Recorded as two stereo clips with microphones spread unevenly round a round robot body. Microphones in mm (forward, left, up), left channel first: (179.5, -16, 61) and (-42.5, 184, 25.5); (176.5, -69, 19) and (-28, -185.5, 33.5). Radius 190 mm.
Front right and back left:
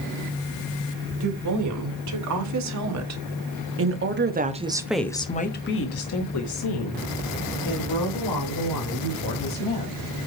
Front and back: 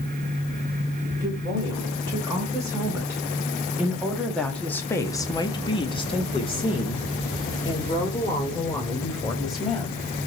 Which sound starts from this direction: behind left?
A woman speaking, at 1.2 s.